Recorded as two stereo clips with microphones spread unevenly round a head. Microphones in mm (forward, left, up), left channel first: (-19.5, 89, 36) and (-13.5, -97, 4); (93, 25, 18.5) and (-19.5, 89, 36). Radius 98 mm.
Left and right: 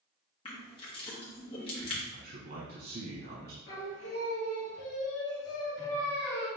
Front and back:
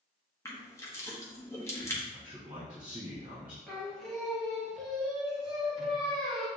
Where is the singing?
60° left, 1.5 m.